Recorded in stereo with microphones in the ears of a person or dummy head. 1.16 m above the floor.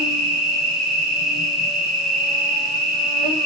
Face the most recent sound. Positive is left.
turn(degrees=-5)  # may be behind; listen again after turning